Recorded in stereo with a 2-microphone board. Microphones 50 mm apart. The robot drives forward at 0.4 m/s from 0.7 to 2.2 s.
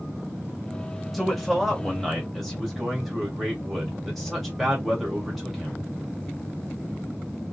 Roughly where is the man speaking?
Centre.